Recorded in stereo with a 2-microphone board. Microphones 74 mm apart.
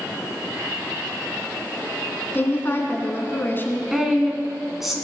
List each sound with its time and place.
2.3 s a woman speaking: 30° left (ahead or behind), 1.5 m
3.9 s a woman speaking: 5° right (ahead or behind), 1.3 m